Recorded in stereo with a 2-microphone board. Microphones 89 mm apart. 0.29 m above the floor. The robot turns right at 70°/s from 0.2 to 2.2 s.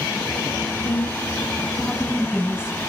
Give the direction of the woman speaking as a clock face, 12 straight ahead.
9 o'clock.